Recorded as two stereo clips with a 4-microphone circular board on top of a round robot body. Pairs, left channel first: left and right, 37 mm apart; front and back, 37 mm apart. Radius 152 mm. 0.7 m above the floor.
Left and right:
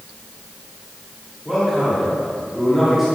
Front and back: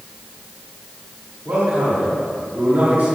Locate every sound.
1.4 s a man speaking: 175° right, 3.5 m